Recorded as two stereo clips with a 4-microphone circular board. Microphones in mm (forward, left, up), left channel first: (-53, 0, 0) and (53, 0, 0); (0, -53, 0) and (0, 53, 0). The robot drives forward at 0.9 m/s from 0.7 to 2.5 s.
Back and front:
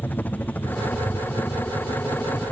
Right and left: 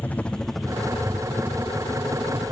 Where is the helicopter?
140° right; by 2.5 s 115° left.